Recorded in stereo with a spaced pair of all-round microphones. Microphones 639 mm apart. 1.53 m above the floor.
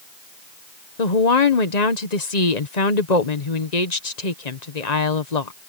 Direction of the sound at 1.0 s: 80° left.